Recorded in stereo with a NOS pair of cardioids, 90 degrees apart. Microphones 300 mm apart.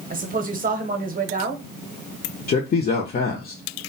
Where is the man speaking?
35° left, 0.6 m.